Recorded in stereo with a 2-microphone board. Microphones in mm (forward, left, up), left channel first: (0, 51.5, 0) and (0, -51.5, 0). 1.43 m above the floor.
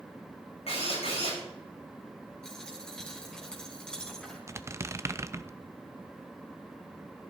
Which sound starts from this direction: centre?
A dropped coin, at 2.4 s.